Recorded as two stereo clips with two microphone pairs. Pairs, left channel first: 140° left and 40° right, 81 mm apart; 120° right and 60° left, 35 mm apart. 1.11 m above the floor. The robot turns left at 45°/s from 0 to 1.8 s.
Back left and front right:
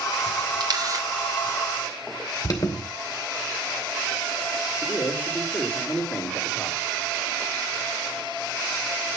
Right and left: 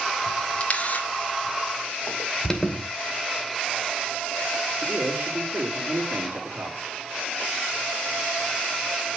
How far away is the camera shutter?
About 2.0 m.